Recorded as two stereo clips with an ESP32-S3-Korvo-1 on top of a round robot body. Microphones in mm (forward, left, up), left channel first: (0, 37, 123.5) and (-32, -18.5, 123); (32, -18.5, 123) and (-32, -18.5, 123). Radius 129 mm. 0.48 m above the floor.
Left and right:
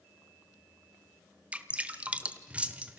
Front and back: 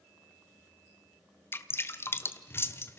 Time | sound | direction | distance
1.5 | dripping | 50° right | 1.2 m